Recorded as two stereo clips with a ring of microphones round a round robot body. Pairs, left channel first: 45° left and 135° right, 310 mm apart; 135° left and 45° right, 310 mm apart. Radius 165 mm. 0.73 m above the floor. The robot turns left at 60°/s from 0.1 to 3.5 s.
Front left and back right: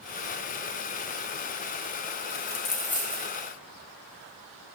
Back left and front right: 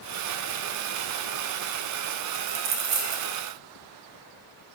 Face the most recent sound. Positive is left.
turn(degrees=-75)